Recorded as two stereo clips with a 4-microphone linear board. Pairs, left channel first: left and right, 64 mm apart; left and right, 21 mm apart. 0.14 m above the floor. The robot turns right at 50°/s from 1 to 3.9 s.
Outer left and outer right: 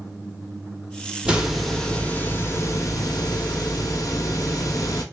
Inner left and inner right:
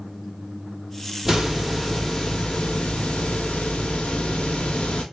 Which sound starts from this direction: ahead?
A hiss, at 1.2 s.